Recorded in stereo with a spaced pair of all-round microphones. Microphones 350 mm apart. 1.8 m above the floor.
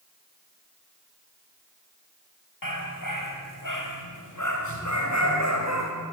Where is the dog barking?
70° left (ahead or behind), 5 m; by 5.9 s 45° left (ahead or behind), 4.5 m.